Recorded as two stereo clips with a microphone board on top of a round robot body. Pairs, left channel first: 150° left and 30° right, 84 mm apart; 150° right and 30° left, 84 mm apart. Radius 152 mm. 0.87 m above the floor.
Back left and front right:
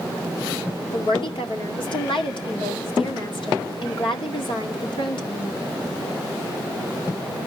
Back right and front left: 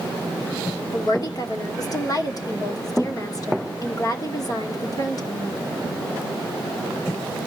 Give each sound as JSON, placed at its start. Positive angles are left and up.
{"t": 0.9, "sound": "a woman speaking", "azimuth_deg": 165, "distance_m": 2.5}